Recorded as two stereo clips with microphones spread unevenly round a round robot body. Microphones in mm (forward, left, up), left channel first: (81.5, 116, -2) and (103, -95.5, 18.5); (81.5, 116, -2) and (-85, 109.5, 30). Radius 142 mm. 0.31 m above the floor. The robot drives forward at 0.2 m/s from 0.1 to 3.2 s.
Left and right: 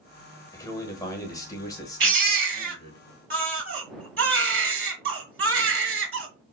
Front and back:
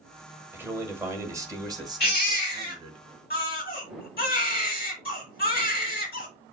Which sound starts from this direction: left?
A man speaking, at 0.5 s.